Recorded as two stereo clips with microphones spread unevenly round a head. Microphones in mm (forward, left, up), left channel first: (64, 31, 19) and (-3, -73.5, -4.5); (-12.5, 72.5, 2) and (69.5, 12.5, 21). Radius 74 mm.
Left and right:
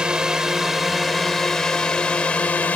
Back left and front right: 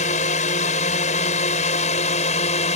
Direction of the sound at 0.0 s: 150° left.